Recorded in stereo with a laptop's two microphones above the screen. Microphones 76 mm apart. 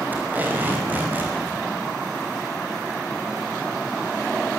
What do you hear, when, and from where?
0.1 s tape being pulled: 25° right (ahead or behind), 5.5 m